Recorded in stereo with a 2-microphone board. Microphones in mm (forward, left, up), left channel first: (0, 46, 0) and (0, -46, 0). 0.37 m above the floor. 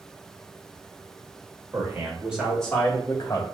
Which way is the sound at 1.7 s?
35° right (ahead or behind).